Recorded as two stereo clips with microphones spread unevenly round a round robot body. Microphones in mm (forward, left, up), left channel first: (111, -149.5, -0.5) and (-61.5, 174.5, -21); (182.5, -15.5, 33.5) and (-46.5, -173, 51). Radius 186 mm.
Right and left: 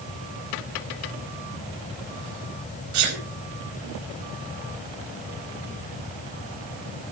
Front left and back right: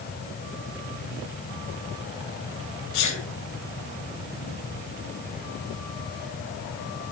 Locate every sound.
2.9 s a sneeze: 75° left, 4.5 m